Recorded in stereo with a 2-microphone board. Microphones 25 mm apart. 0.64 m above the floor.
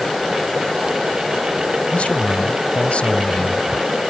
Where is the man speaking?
70° left (ahead or behind).